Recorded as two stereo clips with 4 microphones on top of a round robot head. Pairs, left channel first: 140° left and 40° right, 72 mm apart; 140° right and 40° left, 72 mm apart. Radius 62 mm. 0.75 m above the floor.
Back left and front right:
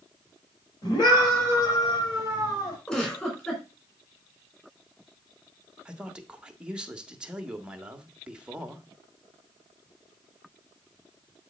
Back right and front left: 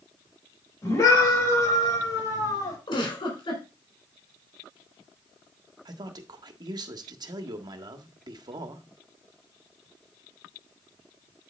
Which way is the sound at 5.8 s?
35° left.